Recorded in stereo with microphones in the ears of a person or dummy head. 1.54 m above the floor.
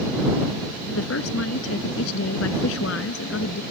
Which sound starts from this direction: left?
A woman speaking, at 0.9 s.